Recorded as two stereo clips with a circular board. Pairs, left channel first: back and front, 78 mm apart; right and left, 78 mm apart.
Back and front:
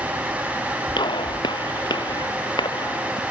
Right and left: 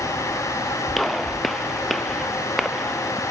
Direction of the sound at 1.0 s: Straight behind.